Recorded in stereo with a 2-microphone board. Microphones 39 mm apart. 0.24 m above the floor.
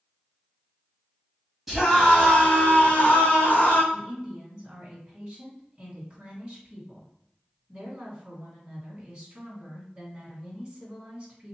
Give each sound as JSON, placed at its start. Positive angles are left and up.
{"t": 1.7, "sound": "a scream", "side_deg": -5, "distance_m": 1.8}
{"t": 3.9, "sound": "a woman speaking", "side_deg": -25, "distance_m": 2.0}